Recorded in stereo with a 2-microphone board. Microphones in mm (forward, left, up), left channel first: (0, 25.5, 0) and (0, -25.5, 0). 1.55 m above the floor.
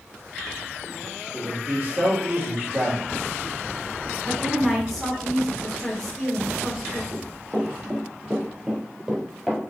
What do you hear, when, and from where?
1.3 s a man speaking: 45° right (ahead or behind), 1.9 m
4.2 s a woman speaking: 5° left (ahead or behind), 1.5 m
7.1 s running footsteps: 40° right (ahead or behind), 2.0 m; by 9.6 s 5° right (ahead or behind), 1.8 m